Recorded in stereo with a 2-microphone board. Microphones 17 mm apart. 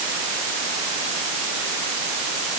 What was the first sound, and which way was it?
Only background noise.